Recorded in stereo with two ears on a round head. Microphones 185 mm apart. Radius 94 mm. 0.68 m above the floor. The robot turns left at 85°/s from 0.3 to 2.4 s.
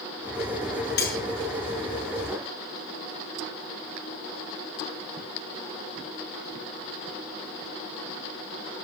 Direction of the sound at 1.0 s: 50° left (ahead or behind).